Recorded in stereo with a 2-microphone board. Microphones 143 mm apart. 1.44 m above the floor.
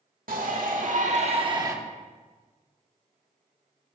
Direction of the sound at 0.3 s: 80° right.